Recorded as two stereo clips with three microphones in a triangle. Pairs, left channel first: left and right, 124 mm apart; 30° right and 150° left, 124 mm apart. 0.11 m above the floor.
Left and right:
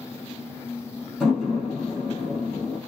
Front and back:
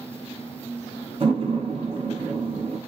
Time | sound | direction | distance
1.2 | a door slam | 175° right | 1.9 m